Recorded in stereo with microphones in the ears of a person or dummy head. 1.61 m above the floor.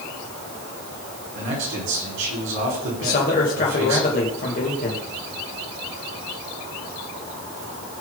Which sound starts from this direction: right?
A man speaking, at 1.4 s.